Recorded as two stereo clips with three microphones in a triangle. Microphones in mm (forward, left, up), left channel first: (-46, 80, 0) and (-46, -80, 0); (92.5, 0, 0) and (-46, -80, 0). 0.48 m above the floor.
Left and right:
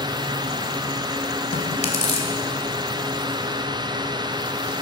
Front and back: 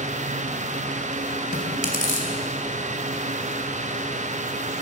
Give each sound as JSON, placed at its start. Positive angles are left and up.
{"t": 1.5, "sound": "chewing", "azimuth_deg": 50, "distance_m": 2.5}